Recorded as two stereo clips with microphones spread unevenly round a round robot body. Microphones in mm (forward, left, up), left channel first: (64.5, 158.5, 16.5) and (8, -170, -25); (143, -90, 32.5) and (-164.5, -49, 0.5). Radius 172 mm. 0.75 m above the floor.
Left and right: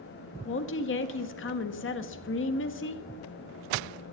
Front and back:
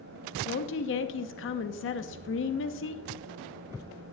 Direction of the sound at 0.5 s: 35° left.